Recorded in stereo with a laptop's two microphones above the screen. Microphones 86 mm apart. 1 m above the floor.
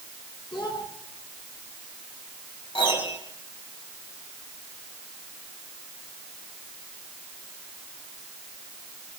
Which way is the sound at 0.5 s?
65° left (ahead or behind).